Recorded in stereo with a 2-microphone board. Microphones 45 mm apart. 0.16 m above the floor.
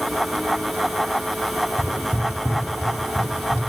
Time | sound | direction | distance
1.8 | footsteps | 85° left | 2 m